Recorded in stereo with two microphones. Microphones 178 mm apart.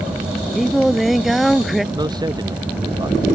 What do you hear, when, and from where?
0.6 s singing: centre (ahead or behind)
1.9 s a man speaking: 25° right (ahead or behind)